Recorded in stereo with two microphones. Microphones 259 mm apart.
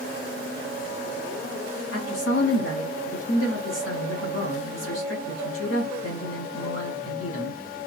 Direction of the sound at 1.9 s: 65° left (ahead or behind).